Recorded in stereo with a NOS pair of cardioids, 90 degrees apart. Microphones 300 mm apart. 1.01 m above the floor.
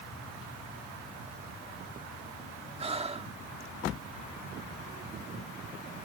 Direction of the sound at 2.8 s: 20° right.